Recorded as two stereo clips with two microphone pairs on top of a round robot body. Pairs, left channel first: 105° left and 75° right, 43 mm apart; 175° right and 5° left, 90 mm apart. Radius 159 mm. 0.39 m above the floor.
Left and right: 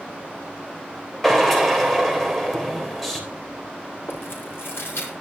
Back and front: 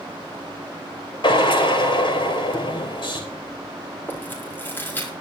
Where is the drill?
165° right, 3 m.